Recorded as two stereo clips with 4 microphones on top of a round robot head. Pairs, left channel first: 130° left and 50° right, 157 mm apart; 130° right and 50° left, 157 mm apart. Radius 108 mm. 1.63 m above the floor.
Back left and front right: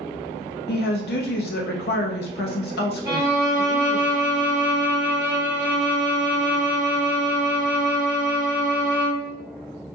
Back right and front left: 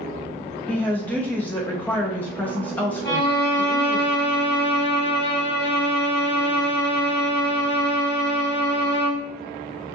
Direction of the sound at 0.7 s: 150° left.